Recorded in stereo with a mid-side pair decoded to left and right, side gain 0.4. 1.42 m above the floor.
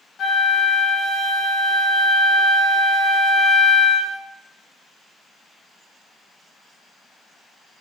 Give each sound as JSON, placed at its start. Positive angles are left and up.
{"t": 0.2, "sound": "a flute", "azimuth_deg": 55, "distance_m": 0.6}